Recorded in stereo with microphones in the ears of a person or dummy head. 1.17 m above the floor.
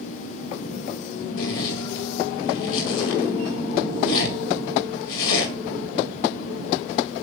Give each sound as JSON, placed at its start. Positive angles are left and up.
{"t": 1.4, "sound": "a zipper", "side_deg": 70, "distance_m": 2.0}